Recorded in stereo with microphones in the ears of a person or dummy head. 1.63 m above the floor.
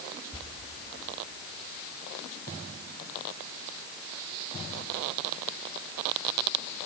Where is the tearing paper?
20° left (ahead or behind), 5 m.